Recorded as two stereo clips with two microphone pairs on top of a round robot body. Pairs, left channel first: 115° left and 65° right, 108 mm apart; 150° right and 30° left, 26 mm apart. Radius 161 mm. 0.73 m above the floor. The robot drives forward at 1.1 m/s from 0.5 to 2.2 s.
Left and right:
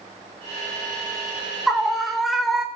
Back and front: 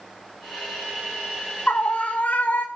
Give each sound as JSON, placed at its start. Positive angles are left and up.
{"t": 1.7, "sound": "a scream", "azimuth_deg": -150, "distance_m": 4.0}